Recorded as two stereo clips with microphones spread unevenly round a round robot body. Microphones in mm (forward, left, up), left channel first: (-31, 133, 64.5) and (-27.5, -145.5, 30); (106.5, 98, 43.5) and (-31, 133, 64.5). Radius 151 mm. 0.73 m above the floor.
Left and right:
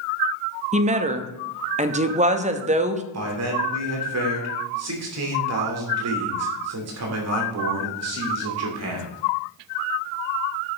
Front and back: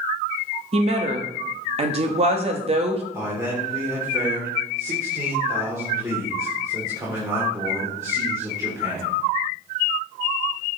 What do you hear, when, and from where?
0.7 s a woman speaking: 145° right, 0.9 m
3.1 s a man speaking: 115° right, 2.5 m